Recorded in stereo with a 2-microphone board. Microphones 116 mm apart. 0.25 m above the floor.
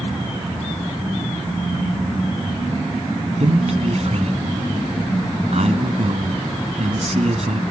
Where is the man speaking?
60° right (ahead or behind), 1.9 m.